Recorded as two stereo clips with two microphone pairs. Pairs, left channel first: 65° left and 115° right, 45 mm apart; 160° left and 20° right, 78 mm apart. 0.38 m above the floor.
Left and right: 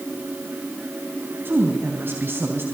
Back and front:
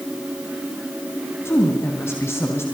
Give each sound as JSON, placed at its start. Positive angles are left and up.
{"t": 1.4, "sound": "a woman speaking", "azimuth_deg": -145, "distance_m": 3.0}